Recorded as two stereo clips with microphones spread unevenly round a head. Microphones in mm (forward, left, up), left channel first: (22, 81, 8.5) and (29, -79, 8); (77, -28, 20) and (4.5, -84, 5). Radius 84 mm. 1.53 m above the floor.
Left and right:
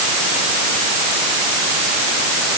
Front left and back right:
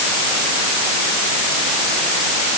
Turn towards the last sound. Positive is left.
No sound to turn to.